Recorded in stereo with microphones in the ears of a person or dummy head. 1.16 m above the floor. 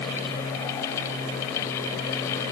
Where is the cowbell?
No cowbell in this recording.